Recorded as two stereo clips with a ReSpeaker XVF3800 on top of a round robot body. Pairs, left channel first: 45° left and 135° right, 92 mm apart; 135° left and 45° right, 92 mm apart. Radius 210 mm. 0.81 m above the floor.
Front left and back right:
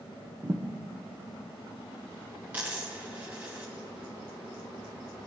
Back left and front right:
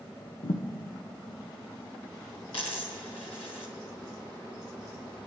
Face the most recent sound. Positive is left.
turn(degrees=155)